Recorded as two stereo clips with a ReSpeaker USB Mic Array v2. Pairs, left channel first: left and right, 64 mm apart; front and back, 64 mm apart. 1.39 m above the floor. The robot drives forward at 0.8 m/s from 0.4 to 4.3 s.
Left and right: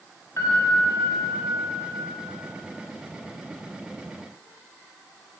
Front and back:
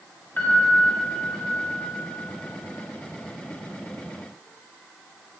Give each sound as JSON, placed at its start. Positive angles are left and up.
{"t": 0.4, "sound": "a piano", "azimuth_deg": 55, "distance_m": 1.7}